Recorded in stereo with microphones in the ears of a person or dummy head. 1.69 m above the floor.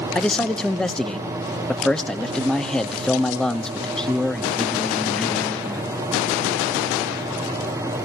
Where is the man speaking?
5° left (ahead or behind), 1.0 m.